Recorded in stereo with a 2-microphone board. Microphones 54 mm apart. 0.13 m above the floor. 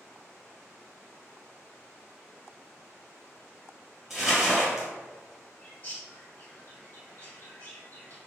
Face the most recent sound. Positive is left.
turn(degrees=30)  # may be behind; listen again after turning